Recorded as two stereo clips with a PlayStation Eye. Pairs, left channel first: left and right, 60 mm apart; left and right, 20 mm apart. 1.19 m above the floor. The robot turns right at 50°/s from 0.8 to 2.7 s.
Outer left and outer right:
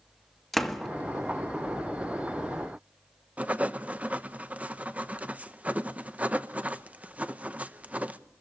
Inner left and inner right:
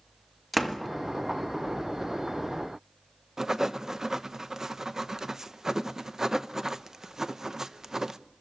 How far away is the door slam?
About 1.6 m.